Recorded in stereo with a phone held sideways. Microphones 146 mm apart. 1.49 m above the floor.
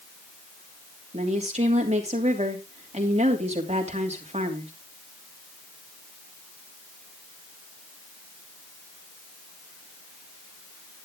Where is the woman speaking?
45° right (ahead or behind), 3 m.